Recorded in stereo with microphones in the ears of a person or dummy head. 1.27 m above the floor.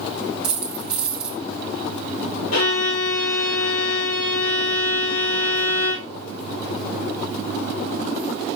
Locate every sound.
0.4 s a dropped coin: 5° right (ahead or behind), 1.7 m
2.5 s a violin: 75° left (ahead or behind), 3.5 m